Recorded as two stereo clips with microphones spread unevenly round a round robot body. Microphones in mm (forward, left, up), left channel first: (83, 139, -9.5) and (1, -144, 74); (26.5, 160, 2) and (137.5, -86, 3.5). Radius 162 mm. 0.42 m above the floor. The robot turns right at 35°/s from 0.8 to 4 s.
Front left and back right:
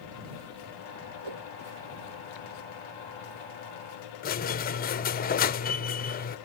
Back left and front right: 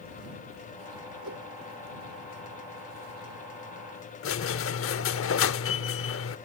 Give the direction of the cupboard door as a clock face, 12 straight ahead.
No cupboard door in this recording.